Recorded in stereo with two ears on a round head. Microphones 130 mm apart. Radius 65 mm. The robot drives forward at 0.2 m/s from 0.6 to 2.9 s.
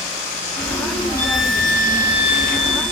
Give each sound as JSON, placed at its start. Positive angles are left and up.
{"t": 1.2, "sound": "a violin", "side_deg": 75, "distance_m": 3.5}